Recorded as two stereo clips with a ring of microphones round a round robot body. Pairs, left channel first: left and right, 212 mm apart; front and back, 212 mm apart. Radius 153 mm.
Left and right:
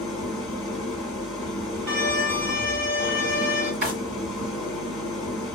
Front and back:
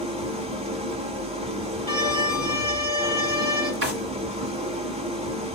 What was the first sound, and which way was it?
An engine running, straight behind.